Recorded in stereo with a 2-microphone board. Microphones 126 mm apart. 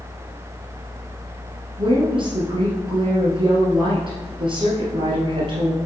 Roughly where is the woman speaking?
Right.